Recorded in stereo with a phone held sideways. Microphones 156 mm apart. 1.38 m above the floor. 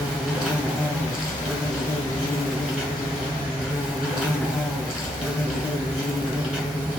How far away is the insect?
About 2.5 m.